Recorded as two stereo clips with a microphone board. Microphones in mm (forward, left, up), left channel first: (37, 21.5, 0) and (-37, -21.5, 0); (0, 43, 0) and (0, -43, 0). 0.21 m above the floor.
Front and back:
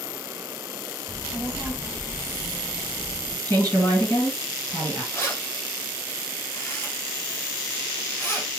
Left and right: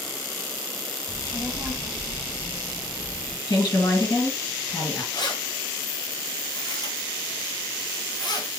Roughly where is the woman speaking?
Left.